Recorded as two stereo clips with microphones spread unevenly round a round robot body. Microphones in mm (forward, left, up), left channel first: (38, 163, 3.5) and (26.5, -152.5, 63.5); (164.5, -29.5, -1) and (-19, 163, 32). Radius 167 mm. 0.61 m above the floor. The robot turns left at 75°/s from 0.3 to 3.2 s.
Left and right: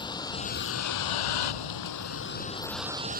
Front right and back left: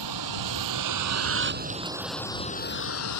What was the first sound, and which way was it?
A vehicle, 165° left.